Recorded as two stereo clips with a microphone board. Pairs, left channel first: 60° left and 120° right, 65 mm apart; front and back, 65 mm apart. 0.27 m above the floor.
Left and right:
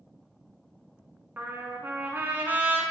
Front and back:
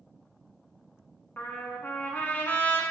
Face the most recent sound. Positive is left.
turn(degrees=-60)